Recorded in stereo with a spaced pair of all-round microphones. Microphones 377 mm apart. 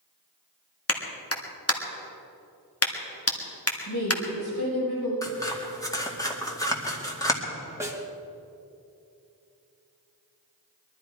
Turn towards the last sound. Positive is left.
turn(degrees=-10)  # may be behind; listen again after turning